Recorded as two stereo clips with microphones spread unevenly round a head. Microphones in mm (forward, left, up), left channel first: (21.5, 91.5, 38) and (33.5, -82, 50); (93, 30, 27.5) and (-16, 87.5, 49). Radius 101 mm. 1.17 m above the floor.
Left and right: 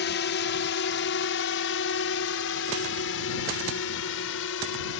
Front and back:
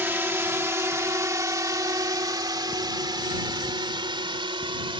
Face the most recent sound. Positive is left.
turn(degrees=105)